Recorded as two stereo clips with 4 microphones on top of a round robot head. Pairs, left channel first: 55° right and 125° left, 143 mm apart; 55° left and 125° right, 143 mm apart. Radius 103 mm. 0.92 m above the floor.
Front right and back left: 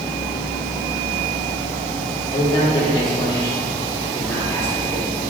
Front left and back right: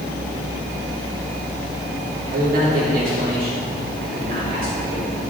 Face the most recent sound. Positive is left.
turn(degrees=-140)